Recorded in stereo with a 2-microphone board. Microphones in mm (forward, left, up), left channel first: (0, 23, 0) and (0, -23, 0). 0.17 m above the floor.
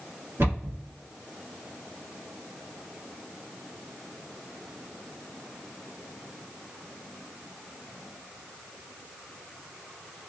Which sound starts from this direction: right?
A cupboard door, at 0.4 s.